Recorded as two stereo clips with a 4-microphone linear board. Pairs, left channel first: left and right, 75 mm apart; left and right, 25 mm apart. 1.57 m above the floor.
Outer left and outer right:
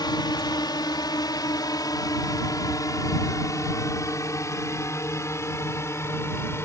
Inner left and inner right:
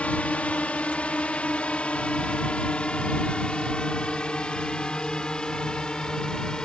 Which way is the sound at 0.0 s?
70° left (ahead or behind).